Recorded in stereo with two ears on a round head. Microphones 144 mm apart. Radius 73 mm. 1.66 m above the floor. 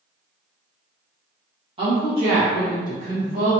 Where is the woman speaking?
30° right (ahead or behind), 1.5 m; by 3.5 s 50° right (ahead or behind), 2.5 m.